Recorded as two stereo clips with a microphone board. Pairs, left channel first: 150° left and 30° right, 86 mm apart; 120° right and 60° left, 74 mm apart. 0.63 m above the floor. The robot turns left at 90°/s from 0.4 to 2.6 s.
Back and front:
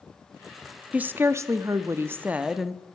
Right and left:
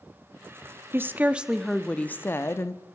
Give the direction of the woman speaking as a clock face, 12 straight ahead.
11 o'clock.